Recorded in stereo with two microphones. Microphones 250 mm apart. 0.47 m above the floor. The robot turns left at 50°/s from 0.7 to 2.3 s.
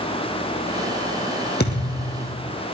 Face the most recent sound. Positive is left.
turn(degrees=105)